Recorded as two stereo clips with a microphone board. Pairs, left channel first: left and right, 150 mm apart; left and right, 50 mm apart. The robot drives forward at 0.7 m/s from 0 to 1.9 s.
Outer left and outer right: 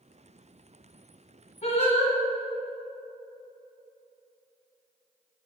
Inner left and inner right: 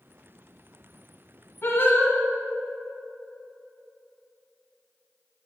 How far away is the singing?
About 1.1 m.